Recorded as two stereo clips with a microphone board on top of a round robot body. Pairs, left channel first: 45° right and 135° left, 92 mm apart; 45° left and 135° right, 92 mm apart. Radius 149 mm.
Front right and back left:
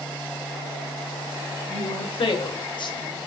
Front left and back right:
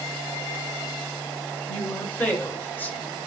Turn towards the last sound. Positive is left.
turn(degrees=-20)